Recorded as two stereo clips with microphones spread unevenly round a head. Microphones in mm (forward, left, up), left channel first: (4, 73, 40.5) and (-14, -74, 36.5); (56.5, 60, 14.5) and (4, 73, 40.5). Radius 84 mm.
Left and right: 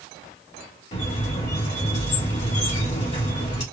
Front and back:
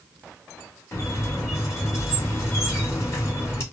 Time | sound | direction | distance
0.9 | a squeak | 35° left | 1.7 m